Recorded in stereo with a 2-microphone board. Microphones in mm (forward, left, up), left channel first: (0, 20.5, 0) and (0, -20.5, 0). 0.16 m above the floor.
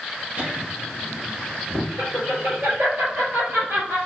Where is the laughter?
45° right (ahead or behind), 1.6 m; by 4.0 s 70° right (ahead or behind), 3.5 m.